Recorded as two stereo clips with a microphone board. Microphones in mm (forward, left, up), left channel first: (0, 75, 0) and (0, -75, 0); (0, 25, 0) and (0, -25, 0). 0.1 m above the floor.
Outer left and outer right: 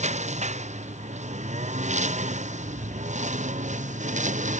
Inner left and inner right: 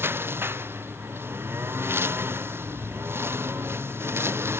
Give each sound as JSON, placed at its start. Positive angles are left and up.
{"t": 0.0, "sound": "a lawn mower", "side_deg": -50}